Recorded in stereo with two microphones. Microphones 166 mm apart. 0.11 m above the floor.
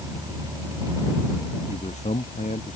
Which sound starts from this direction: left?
A man speaking, at 1.7 s.